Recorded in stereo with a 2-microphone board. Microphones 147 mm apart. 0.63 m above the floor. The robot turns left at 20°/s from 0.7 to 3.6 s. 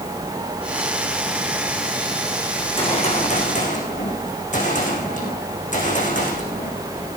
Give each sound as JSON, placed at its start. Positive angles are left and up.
{"t": 2.6, "sound": "a gunshot", "side_deg": 35, "distance_m": 6.5}